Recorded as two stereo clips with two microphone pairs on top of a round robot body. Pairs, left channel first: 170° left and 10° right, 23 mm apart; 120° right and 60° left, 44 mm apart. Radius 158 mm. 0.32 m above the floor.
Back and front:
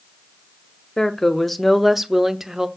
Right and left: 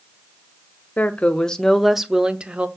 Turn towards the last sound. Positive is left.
turn(degrees=20)